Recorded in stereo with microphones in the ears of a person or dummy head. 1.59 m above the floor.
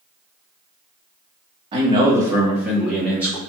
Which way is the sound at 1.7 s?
30° right (ahead or behind).